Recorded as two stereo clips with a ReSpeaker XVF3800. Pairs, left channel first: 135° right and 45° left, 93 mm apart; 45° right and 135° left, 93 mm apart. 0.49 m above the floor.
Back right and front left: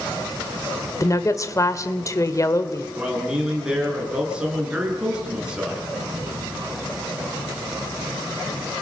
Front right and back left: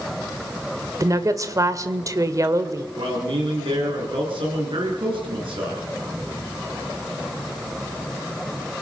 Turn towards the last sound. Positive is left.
turn(degrees=125)